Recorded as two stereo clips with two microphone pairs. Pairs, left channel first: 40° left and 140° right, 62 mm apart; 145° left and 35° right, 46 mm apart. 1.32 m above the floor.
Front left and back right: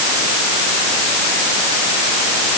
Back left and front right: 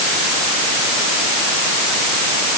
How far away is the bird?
I don't hear a bird.